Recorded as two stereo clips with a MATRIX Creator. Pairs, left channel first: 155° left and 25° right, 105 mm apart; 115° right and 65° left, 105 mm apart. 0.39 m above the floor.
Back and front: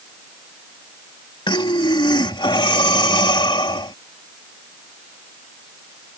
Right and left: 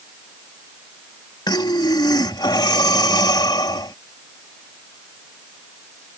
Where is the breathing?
160° right.